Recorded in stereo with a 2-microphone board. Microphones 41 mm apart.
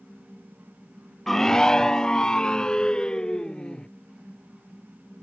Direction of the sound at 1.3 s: 5° left (ahead or behind).